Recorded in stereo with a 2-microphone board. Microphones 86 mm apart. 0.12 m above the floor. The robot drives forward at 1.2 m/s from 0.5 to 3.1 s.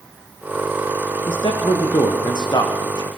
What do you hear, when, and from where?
1.3 s a man speaking: 70° left (ahead or behind), 6.5 m; by 3.1 s 55° left (ahead or behind), 7.5 m